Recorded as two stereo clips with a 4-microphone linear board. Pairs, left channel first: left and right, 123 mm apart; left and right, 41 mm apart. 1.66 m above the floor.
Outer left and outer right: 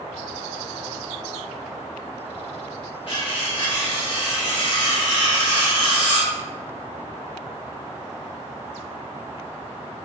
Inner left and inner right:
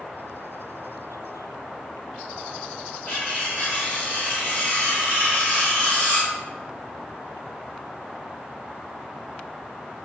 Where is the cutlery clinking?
45° left (ahead or behind), 1.5 m.